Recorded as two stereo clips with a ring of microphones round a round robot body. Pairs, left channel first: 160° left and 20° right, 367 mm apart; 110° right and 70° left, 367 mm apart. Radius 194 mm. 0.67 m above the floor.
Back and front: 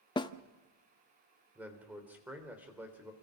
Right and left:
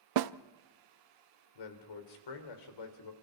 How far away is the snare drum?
About 0.7 m.